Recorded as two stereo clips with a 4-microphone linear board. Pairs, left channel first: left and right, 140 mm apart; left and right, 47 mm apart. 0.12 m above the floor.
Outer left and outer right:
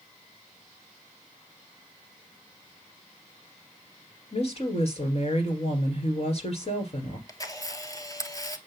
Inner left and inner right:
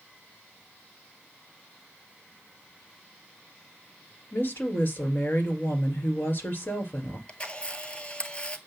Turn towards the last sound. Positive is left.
turn(degrees=25)  # may be behind; listen again after turning